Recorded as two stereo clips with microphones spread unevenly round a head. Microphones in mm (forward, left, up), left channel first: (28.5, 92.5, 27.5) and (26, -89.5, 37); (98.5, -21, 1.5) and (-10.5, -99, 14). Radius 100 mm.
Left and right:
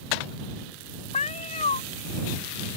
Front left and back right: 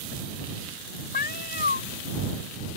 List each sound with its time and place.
1.1 s a cat meowing: 35° left